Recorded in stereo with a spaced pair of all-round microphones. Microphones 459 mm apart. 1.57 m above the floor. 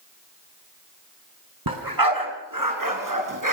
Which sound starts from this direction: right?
A dog barking, at 1.7 s.